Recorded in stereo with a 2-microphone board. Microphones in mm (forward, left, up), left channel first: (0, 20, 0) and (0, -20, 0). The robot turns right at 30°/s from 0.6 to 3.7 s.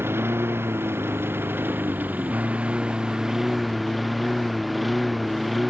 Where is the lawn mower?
95° right; by 5.7 s straight ahead.